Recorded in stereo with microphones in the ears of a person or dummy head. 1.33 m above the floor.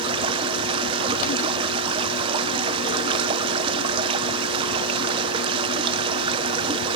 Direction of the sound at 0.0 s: 25° right (ahead or behind).